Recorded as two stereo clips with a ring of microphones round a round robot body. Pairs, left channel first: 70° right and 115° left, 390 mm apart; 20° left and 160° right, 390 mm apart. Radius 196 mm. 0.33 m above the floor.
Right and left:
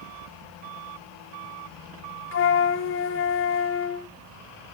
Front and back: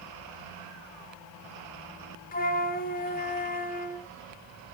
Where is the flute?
30° right, 0.5 m.